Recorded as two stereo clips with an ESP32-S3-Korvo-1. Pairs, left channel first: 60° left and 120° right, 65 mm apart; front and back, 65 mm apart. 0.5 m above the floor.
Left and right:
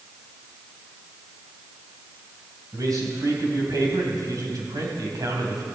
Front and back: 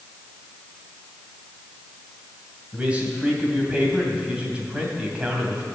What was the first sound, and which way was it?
A man speaking, 110° right.